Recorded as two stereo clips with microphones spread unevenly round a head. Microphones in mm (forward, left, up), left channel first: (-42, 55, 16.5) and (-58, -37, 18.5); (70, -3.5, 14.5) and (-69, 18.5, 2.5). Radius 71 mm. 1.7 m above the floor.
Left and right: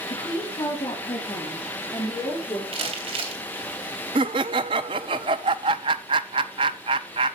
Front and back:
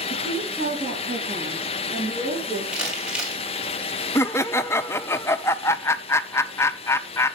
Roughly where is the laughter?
Right.